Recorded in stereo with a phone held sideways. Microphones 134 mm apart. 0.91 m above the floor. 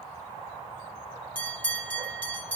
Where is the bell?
15° left (ahead or behind), 5 m.